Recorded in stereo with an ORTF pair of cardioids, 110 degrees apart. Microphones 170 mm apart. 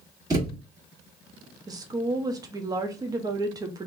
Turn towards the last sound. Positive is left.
turn(degrees=-25)